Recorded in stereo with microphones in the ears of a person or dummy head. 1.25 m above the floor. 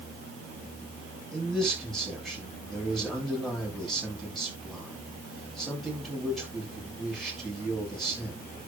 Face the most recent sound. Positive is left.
turn(degrees=5)  # may be behind; listen again after turning